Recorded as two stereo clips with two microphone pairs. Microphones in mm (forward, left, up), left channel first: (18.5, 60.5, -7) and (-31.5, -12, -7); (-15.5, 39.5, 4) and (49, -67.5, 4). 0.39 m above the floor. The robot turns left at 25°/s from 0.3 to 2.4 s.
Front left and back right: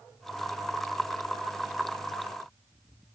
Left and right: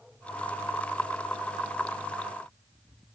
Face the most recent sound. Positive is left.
No sound to turn to.